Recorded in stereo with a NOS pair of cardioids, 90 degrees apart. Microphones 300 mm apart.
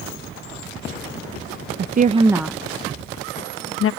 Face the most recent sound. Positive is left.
turn(degrees=50)